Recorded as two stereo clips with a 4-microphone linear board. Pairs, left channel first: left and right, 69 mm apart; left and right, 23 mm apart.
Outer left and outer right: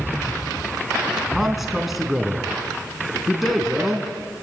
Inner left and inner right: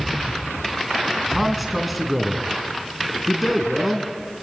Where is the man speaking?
5° right (ahead or behind), 3.5 m.